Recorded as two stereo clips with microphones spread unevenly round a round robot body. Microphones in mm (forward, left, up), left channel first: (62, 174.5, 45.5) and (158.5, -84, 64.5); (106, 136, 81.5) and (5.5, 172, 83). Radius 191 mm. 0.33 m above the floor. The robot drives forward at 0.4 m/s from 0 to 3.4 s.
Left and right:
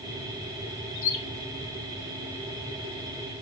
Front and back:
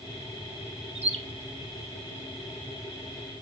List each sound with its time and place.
0.9 s a bird: 145° left, 1.4 m; by 1.2 s 150° left, 1.4 m